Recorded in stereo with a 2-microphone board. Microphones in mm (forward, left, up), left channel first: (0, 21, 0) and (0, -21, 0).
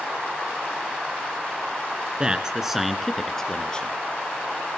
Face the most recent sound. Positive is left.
turn(degrees=25)  # may be behind; listen again after turning